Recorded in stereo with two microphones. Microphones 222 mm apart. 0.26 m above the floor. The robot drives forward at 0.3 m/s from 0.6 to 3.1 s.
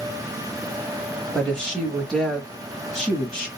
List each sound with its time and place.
1.3 s a woman speaking: centre (ahead or behind), 0.9 m